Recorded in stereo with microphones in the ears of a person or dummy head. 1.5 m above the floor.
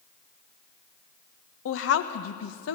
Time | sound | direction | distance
1.6 | a woman speaking | 80° left | 1.2 m